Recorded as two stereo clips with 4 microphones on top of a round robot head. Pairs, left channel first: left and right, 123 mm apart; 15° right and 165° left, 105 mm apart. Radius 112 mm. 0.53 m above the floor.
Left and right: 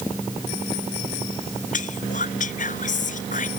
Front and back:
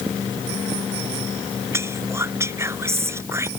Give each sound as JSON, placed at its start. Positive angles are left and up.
{"t": 1.7, "sound": "whispering", "azimuth_deg": 100}